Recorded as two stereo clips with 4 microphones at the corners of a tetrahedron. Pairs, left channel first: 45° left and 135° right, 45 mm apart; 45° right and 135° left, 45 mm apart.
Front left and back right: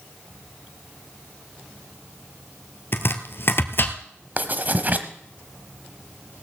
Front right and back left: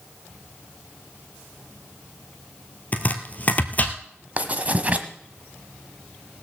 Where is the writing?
Straight behind, 1.0 m.